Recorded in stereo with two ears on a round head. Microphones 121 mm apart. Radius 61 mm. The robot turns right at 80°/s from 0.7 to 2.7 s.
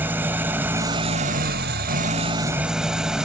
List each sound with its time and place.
0.0 s an engine running: 165° right, 0.8 m; by 3.3 s 5° right, 0.8 m